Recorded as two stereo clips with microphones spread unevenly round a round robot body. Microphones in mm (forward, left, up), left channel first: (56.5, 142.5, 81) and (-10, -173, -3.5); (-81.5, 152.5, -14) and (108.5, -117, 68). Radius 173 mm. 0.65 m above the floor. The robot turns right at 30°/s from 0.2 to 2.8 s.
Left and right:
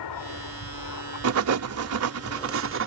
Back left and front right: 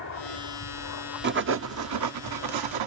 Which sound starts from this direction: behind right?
Writing, at 1.2 s.